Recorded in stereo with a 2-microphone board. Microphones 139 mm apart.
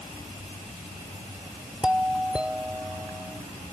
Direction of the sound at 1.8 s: 5° right (ahead or behind).